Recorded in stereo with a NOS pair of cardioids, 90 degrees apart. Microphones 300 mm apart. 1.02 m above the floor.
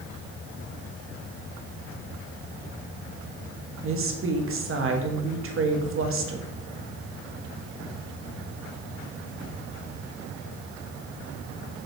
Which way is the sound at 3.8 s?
45° right.